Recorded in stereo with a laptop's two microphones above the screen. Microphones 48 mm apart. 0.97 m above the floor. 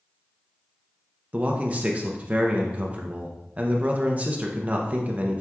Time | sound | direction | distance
1.3 | a man speaking | 30° right (ahead or behind) | 0.6 m